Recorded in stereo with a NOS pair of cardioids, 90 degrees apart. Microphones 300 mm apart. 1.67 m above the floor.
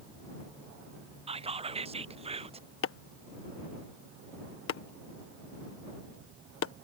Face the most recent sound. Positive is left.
turn(degrees=45)